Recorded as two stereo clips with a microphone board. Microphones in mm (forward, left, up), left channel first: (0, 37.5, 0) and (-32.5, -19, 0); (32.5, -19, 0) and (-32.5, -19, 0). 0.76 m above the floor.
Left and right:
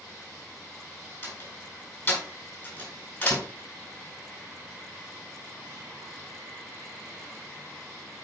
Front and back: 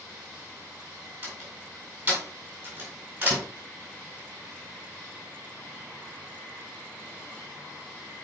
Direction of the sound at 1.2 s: 115° left.